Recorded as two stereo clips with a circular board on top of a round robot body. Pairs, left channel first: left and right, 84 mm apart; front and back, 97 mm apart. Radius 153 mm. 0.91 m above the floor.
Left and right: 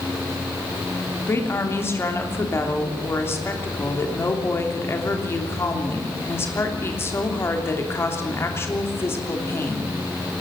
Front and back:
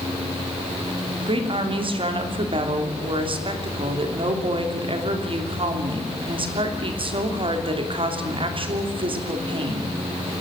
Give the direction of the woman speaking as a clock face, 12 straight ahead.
7 o'clock.